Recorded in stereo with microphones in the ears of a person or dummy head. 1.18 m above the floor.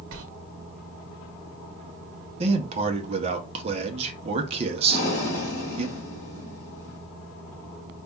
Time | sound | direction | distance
0.1 | a sliding door | 75° right (ahead or behind) | 1.0 m
2.4 | a man speaking | 30° right (ahead or behind) | 0.7 m
4.9 | breathing | 65° left (ahead or behind) | 3.5 m